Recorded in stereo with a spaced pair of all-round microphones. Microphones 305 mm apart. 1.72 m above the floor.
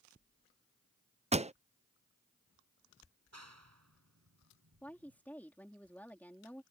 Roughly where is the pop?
Right.